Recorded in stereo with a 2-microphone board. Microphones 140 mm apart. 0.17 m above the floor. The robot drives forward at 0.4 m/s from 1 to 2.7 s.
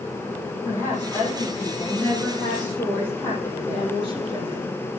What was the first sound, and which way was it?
A woman speaking, 15° left (ahead or behind).